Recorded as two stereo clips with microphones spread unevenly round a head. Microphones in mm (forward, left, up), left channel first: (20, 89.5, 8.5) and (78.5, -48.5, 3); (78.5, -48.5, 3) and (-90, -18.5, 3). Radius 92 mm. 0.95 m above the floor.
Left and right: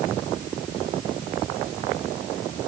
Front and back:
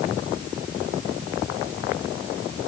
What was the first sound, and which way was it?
Only background noise.